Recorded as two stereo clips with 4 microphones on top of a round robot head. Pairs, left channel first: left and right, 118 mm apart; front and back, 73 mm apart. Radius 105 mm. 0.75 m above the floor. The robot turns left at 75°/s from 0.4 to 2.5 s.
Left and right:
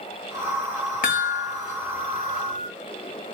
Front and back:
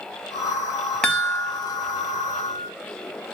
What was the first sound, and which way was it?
A chime, 80° left.